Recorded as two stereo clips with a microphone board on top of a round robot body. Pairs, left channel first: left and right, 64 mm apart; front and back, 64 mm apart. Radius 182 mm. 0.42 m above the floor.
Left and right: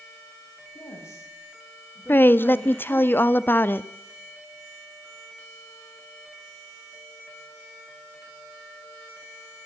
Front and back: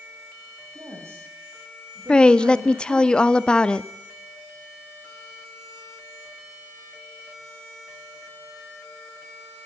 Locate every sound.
0.8 s a woman speaking: 135° left, 4.5 m; by 3.1 s 175° left, 3.5 m
2.1 s a woman speaking: 65° left, 1.3 m